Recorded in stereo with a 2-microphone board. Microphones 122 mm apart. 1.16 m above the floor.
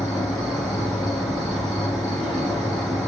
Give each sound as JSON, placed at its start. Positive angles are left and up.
{"t": 0.0, "sound": "an insect", "side_deg": 5, "distance_m": 1.3}